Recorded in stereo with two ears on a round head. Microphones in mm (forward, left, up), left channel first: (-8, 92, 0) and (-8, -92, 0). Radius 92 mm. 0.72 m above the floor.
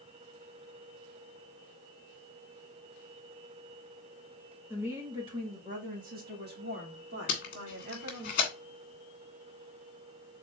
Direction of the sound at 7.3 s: 40° left (ahead or behind).